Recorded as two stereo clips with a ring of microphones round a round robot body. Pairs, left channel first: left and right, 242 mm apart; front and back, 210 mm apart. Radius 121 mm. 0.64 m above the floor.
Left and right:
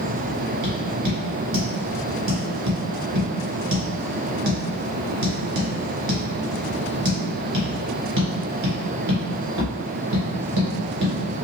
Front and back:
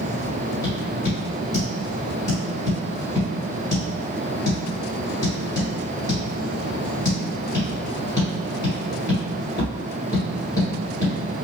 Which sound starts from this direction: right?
Tapping, at 0.6 s.